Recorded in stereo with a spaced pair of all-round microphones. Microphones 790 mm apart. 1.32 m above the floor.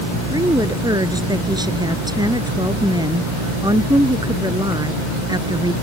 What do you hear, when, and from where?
0.3 s a woman speaking: 5° right (ahead or behind)